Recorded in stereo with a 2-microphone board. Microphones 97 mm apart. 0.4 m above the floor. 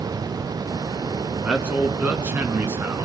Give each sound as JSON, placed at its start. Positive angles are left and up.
{"t": 1.4, "sound": "a man speaking", "side_deg": -10, "distance_m": 4.0}